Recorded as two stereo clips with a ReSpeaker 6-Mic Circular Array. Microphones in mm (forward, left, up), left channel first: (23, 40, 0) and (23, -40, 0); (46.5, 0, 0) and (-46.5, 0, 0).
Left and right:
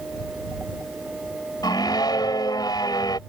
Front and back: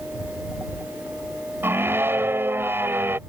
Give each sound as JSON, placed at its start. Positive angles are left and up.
{"t": 1.6, "sound": "a scream", "azimuth_deg": 115}